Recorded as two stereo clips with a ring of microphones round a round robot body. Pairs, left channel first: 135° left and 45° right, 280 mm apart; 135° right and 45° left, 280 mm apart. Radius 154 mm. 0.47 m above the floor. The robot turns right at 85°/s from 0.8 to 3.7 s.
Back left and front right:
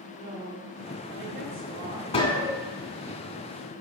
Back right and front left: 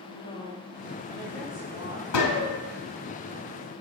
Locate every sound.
0.1 s a woman speaking: 100° right, 1.4 m; by 2.2 s 20° left, 1.4 m
2.1 s a gunshot: 155° right, 1.3 m; by 2.6 s 120° right, 1.3 m